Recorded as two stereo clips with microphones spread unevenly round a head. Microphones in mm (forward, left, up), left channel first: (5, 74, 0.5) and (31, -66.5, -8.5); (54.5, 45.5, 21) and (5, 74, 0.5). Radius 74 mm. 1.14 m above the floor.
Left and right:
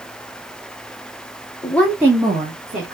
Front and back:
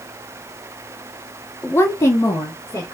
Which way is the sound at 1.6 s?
35° left.